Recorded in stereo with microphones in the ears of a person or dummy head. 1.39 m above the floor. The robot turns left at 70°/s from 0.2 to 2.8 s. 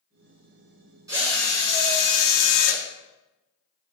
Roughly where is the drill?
Behind.